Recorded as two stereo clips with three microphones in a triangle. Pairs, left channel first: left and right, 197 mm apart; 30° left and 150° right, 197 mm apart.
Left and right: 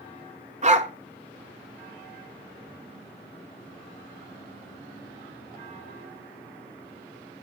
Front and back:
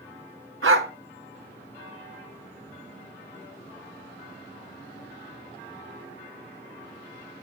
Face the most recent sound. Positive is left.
turn(degrees=-145)